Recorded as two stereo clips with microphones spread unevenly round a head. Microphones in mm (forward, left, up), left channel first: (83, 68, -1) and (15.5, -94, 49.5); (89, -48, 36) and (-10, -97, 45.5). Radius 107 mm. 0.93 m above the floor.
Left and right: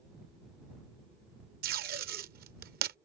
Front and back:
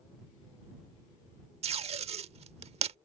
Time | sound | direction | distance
1.6 | tape being pulled | 140° right | ?